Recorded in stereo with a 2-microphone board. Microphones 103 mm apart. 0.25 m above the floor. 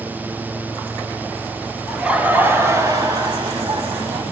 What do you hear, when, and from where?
1.9 s laughter: 5° right (ahead or behind), 0.9 m; by 4.2 s 55° right (ahead or behind), 1.6 m